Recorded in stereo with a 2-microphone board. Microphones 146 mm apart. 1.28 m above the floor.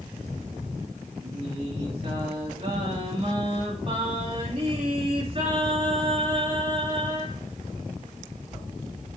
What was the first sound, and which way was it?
Singing, 45° right (ahead or behind).